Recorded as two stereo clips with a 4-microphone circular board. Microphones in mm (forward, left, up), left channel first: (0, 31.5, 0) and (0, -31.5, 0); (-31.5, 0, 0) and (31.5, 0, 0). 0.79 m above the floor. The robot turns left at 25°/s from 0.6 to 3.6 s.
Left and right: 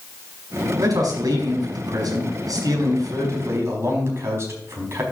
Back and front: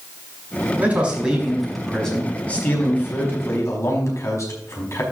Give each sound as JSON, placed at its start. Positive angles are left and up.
{"t": 0.8, "sound": "a man speaking", "azimuth_deg": -70, "distance_m": 4.5}